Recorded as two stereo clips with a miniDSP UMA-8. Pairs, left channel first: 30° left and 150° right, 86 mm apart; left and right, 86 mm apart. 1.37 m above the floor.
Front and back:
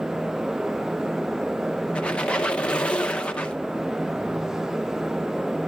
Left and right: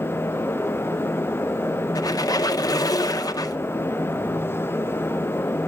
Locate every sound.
1.9 s a squeak: 100° left, 0.7 m